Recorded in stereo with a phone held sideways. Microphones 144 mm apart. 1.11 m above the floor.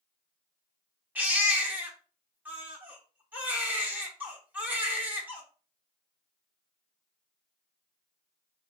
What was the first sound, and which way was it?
A baby crying, 10° right (ahead or behind).